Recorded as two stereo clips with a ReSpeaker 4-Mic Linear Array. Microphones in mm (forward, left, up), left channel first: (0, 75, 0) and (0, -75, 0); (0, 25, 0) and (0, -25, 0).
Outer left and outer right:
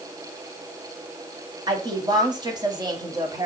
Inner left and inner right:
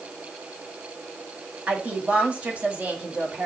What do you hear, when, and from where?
1.7 s a woman speaking: 30° right (ahead or behind), 1.5 m